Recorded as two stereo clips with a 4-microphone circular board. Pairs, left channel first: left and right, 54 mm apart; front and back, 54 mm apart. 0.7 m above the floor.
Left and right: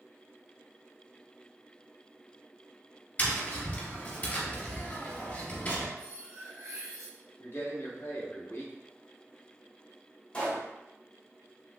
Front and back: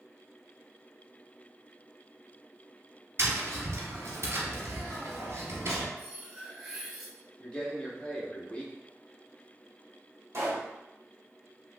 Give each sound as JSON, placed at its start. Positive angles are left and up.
{"t": 3.2, "sound": "tapping", "azimuth_deg": 150, "distance_m": 1.5}
{"t": 6.0, "sound": "cutlery clinking", "azimuth_deg": -90, "distance_m": 1.0}
{"t": 7.4, "sound": "a man speaking", "azimuth_deg": 65, "distance_m": 1.1}
{"t": 10.3, "sound": "a pop", "azimuth_deg": 150, "distance_m": 1.6}